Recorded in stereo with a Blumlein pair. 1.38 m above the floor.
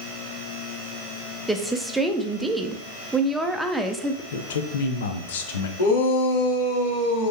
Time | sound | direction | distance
1.5 | a woman speaking | 5° right | 0.6 m
4.3 | a man speaking | 60° left | 0.8 m
5.8 | a shout | 60° left | 2.5 m